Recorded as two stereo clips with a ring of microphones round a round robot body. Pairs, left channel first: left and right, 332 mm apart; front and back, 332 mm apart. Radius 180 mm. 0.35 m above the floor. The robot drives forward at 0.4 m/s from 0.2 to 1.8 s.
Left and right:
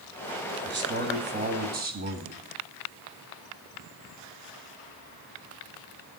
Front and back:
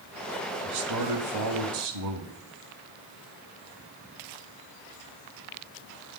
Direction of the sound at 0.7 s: 140° right.